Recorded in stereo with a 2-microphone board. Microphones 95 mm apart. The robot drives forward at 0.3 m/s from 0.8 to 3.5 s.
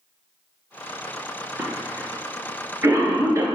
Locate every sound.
1.6 s a cough: 25° right (ahead or behind), 2.5 m; by 3.5 s 30° right (ahead or behind), 2 m